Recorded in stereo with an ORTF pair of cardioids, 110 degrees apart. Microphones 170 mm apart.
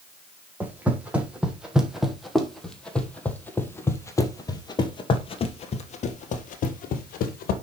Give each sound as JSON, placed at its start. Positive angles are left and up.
{"t": 0.6, "sound": "footsteps", "azimuth_deg": -10, "distance_m": 3.5}